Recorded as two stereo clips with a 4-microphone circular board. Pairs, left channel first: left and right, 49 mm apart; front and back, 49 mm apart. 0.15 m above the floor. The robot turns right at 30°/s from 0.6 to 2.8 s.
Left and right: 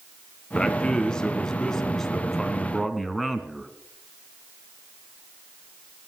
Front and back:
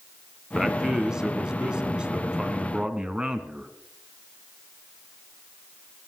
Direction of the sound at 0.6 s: 120° left.